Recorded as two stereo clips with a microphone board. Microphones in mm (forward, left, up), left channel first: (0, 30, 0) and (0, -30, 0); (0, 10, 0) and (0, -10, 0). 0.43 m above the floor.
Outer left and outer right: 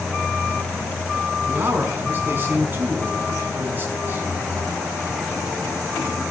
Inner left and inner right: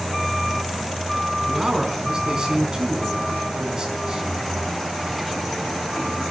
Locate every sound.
1.5 s a man speaking: 30° right (ahead or behind), 5 m